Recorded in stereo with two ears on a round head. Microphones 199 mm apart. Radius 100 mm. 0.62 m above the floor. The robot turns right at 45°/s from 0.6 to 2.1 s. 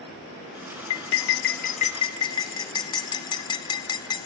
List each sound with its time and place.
0.9 s cutlery clinking: 70° left (ahead or behind), 0.8 m; by 4.3 s 20° left (ahead or behind), 0.8 m